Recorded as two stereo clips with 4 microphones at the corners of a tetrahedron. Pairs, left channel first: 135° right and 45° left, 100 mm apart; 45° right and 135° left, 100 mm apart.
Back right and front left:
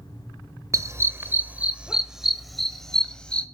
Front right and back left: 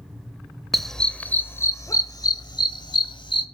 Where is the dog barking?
45° left, 0.9 m; by 3.5 s 60° right, 1.5 m.